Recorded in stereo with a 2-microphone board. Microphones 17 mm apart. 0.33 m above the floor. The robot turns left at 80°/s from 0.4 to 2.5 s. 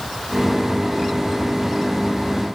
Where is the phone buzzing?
No phone buzzing in this recording.